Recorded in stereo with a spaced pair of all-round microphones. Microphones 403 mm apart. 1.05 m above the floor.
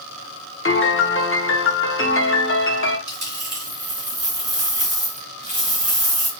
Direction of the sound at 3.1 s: 45° right (ahead or behind).